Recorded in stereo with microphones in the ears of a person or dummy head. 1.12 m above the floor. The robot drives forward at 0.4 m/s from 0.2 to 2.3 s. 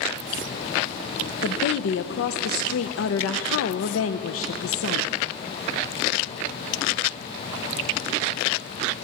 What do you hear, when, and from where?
1.4 s a woman speaking: 50° left (ahead or behind), 0.6 m; by 5.1 s 65° left (ahead or behind), 0.5 m